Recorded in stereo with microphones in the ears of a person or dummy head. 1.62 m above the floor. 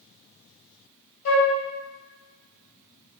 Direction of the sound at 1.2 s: 75° left (ahead or behind).